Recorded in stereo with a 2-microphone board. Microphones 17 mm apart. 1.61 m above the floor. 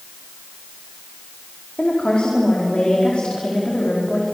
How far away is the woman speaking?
About 4.5 m.